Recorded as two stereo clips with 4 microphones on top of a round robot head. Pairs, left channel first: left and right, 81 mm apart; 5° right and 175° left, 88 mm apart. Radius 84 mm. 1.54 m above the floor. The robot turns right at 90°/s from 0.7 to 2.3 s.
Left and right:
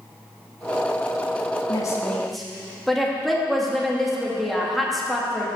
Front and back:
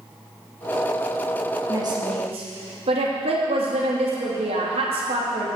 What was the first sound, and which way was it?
A woman speaking, 120° left.